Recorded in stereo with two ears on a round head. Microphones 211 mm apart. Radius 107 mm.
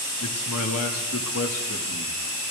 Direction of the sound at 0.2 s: 65° left (ahead or behind).